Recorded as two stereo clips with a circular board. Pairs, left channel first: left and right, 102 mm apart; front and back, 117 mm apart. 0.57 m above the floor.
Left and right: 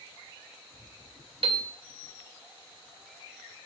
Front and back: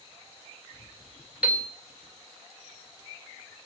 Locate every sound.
1.4 s a piano: 100° right, 1.9 m